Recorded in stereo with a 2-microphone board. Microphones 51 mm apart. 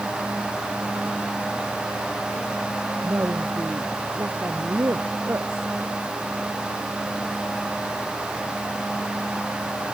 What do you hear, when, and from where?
3.0 s a woman speaking: 60° right (ahead or behind)